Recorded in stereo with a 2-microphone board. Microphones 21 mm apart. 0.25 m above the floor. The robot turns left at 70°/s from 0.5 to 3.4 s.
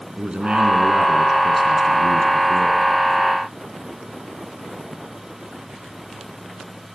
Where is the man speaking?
105° right, 3 m; by 2.8 s 90° left, 3 m.